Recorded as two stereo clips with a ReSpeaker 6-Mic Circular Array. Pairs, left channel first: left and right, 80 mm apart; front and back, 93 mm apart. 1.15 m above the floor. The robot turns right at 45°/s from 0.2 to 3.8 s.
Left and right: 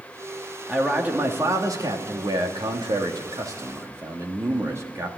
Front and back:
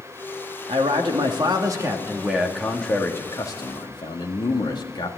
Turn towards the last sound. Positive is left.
turn(degrees=-35)